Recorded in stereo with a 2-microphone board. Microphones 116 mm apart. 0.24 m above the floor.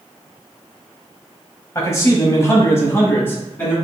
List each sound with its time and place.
1.8 s a man speaking: 25° left (ahead or behind), 1.0 m; by 3.7 s 15° left (ahead or behind), 2.0 m